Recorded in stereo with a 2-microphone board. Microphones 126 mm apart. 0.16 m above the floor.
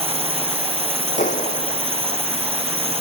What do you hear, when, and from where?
0.0 s a drone: 50° right (ahead or behind)
1.2 s a clap: 80° left